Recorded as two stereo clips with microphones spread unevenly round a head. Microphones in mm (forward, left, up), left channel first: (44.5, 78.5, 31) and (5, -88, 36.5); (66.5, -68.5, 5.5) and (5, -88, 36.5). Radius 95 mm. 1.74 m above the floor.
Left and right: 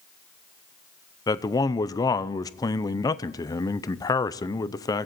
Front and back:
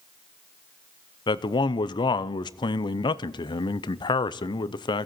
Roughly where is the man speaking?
Ahead.